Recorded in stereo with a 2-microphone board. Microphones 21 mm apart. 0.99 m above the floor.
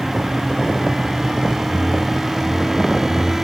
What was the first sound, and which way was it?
A whoosh, 70° left (ahead or behind).